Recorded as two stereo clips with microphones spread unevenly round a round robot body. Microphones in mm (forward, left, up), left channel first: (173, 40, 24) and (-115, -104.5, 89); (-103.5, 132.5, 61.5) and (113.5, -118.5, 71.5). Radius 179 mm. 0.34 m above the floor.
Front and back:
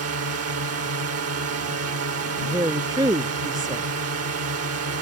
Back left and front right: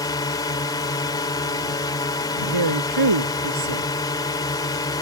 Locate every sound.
0.0 s a drone: 160° right
2.4 s a woman speaking: 75° right